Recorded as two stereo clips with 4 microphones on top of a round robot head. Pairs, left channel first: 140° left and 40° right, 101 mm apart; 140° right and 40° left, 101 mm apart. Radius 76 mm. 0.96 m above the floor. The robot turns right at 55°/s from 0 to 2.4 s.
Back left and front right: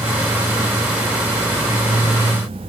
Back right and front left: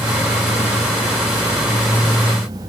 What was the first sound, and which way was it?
Only background noise.